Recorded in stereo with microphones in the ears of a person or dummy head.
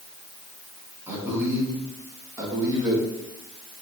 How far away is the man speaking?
About 4 m.